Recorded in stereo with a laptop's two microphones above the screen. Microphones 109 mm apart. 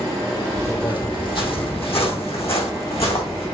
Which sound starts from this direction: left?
Footsteps, at 0.6 s.